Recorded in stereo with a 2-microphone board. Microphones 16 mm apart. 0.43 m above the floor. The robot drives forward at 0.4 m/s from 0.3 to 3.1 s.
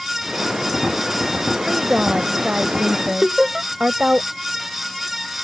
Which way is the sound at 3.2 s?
25° right (ahead or behind).